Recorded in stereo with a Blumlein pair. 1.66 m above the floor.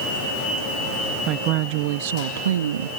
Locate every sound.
1.3 s a woman speaking: 35° right; by 2.9 s 70° right